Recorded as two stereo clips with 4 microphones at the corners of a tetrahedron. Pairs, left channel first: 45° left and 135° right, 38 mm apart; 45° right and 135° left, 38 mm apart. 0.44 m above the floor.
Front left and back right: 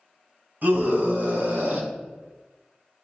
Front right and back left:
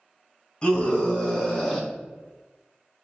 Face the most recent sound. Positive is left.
turn(degrees=-140)